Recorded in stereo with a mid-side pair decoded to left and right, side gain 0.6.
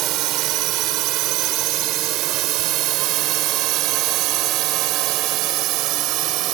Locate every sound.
0.0 s a drone: 65° right; by 6.5 s 70° right